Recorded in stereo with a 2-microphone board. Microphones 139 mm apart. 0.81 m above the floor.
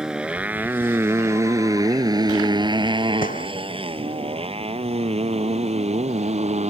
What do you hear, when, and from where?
0.0 s a motorcycle: 5° right (ahead or behind); by 6.7 s 55° right (ahead or behind)
3.2 s a gunshot: 85° left